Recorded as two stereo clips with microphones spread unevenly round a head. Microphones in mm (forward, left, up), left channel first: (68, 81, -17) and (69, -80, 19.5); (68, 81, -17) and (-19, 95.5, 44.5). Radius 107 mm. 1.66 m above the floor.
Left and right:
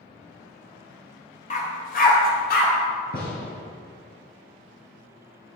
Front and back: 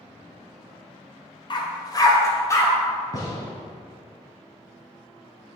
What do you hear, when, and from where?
1.5 s a dog barking: 50° left, 2 m; by 2.7 s 65° left, 3.5 m
3.1 s a gunshot: 60° left, 3.5 m